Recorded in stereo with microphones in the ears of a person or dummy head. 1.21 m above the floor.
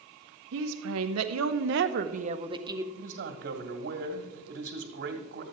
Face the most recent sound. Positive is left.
turn(degrees=-55)  # may be behind; listen again after turning